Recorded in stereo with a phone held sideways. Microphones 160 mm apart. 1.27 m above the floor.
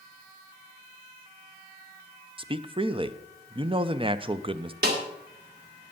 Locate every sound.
2.4 s a man speaking: 30° right (ahead or behind), 0.5 m
4.8 s a snare drum: 75° right (ahead or behind), 2.5 m